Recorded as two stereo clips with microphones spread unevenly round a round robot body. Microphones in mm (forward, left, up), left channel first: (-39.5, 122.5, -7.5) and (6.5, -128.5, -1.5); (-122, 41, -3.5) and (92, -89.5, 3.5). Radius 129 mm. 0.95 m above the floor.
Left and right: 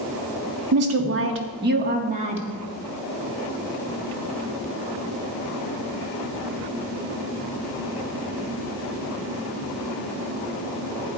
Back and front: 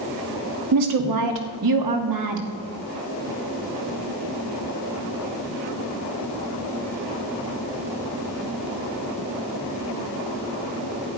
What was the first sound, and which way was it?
A woman speaking, 45° right.